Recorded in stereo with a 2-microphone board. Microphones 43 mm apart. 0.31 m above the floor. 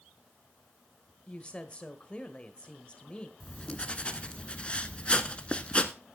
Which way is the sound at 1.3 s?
25° left (ahead or behind).